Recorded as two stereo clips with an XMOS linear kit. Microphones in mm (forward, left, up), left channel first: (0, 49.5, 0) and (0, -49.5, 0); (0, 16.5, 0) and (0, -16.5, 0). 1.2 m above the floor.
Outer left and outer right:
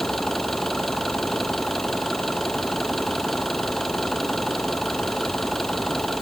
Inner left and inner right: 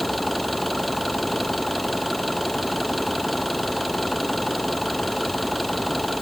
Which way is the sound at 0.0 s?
5° left (ahead or behind).